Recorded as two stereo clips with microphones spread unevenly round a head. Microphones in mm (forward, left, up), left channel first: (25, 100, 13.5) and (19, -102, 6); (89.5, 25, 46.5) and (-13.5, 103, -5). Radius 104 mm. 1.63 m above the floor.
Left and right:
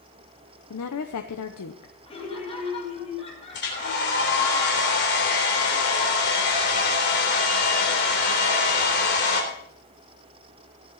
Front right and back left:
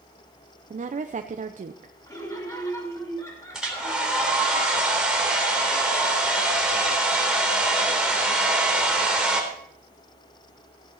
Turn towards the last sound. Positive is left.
turn(degrees=50)